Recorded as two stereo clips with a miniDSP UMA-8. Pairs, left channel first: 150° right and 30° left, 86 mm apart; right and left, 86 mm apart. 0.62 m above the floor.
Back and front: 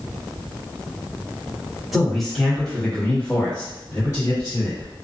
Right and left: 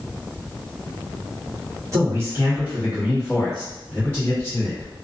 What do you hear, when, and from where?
1.9 s a man speaking: 120° left, 1.3 m; by 4.9 s 135° right, 1.4 m